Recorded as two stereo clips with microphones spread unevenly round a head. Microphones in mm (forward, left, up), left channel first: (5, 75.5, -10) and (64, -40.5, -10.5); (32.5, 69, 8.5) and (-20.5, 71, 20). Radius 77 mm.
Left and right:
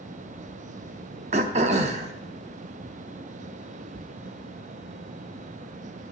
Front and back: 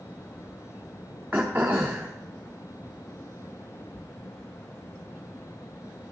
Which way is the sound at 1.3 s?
110° right.